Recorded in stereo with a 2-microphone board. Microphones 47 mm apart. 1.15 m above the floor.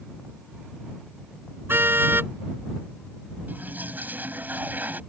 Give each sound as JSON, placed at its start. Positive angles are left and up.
{"t": 1.7, "sound": "a car horn", "side_deg": -55}
{"t": 3.5, "sound": "a toilet flushing", "side_deg": -40}